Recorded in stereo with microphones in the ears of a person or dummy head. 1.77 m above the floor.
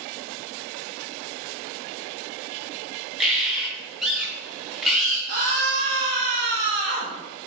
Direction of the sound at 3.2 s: 5° right (ahead or behind).